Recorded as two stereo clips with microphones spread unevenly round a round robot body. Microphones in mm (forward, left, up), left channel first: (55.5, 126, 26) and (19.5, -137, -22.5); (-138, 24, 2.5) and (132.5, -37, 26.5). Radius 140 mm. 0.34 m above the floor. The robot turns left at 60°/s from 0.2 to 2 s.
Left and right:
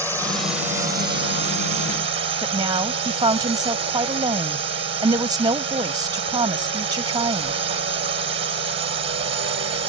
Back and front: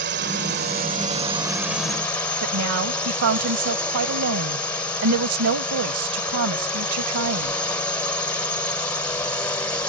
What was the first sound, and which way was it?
A drone, 10° right.